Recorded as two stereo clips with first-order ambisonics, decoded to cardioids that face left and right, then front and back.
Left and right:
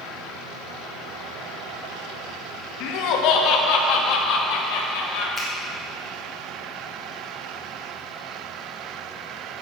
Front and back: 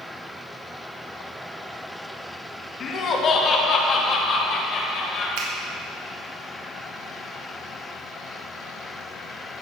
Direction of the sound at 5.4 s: Straight behind.